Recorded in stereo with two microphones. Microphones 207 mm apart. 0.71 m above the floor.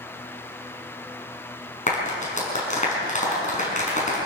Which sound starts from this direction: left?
A clap, at 1.9 s.